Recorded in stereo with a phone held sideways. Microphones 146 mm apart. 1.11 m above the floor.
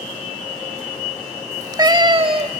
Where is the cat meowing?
20° right (ahead or behind), 0.9 m; by 2.6 s 45° right (ahead or behind), 1.2 m.